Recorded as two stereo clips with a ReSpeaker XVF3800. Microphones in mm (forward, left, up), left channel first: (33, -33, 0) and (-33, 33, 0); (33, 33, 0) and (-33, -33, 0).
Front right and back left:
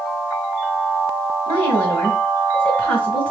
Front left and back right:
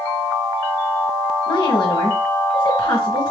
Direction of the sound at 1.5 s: 15° left.